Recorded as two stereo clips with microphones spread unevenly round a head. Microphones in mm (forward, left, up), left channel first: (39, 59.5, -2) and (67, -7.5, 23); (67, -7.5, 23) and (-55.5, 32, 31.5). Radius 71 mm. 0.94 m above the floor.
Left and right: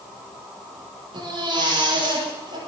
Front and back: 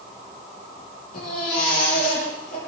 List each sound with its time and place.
1.1 s a baby crying: 55° right, 10 m